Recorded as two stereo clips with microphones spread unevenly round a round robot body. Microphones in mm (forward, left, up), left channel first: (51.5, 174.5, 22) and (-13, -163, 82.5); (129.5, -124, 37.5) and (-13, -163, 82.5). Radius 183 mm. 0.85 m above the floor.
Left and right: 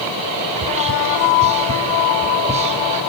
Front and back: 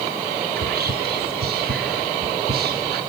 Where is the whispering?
175° right, 1.2 m.